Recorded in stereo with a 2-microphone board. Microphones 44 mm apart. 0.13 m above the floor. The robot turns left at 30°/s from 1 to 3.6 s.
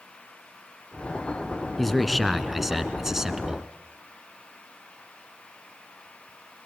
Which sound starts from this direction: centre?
A man speaking, at 1.8 s.